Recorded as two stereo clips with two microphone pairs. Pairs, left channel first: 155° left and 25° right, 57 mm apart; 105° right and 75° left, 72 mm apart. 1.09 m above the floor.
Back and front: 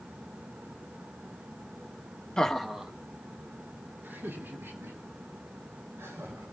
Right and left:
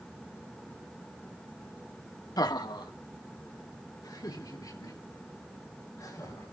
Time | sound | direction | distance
2.4 | laughter | 130° right | 1.4 m